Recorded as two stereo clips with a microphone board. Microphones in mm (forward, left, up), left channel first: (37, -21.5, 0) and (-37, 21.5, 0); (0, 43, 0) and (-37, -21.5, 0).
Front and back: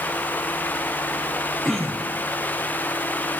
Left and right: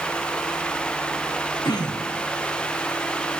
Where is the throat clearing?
60° left, 4 m.